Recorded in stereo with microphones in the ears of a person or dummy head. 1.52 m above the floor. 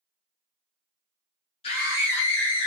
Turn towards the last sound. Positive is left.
turn(degrees=70)  # may be behind; listen again after turning